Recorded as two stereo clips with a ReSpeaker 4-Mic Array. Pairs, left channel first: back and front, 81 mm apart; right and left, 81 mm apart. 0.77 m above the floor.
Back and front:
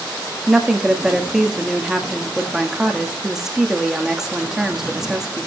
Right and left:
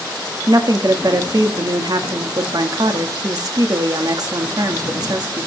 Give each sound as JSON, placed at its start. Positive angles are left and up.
{"t": 0.5, "sound": "a woman speaking", "azimuth_deg": 80, "distance_m": 1.5}